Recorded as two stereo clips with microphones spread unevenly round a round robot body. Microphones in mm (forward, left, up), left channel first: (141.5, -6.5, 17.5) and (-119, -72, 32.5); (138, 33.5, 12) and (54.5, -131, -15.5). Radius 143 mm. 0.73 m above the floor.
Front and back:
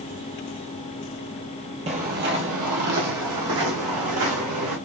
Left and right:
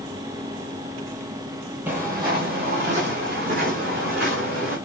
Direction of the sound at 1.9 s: 155° left.